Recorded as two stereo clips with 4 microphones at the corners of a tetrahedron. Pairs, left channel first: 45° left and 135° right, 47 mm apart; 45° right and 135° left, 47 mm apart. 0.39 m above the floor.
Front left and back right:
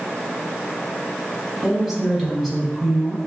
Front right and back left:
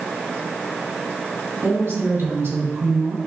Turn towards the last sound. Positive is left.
turn(degrees=120)